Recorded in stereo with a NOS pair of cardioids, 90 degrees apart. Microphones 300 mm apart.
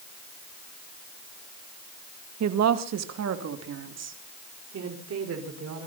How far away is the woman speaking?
About 1.6 m.